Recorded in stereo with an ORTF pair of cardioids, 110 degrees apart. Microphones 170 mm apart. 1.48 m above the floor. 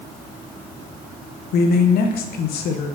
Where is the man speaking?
65° left, 0.9 m.